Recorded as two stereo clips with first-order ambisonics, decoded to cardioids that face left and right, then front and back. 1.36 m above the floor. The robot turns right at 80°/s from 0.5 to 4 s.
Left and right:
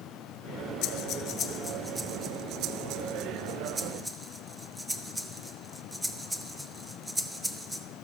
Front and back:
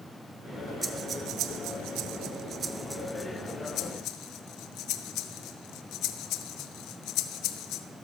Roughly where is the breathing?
Left.